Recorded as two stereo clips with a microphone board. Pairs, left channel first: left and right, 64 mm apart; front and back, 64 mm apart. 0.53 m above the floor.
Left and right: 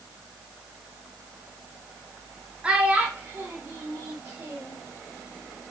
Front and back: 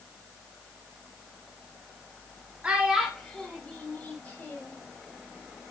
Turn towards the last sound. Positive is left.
turn(degrees=-55)